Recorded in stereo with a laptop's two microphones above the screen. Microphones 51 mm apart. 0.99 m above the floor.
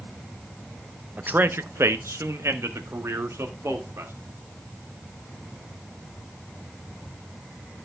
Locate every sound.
1.2 s a man speaking: 35° right (ahead or behind), 0.6 m; by 4.1 s 70° right (ahead or behind), 2.5 m